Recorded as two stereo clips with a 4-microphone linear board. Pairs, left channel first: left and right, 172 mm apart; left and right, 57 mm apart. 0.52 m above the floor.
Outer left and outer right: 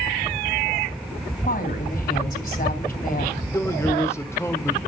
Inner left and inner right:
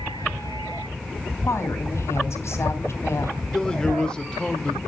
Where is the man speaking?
15° left (ahead or behind), 1.5 m.